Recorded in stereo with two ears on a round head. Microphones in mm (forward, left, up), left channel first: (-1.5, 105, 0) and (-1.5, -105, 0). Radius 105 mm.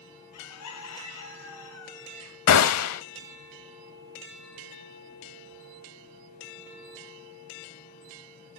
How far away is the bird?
About 3.5 m.